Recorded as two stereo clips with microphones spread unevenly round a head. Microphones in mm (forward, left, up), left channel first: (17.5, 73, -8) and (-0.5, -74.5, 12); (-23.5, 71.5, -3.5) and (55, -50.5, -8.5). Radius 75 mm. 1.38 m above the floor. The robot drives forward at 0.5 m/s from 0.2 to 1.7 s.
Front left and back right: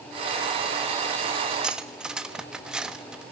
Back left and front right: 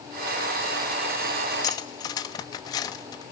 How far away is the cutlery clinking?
About 1.0 m.